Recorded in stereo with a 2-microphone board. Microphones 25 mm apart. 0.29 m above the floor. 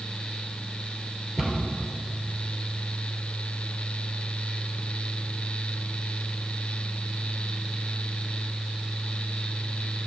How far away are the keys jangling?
I don't hear keys jangling.